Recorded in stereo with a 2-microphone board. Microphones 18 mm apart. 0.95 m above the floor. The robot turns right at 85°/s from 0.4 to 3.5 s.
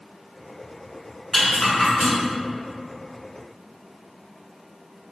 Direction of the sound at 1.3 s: 50° left (ahead or behind).